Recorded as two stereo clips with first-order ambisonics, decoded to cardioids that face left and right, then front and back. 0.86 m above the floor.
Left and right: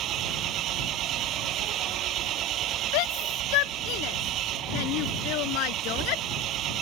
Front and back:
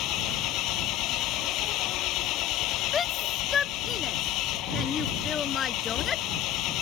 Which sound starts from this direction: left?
A shout, at 2.9 s.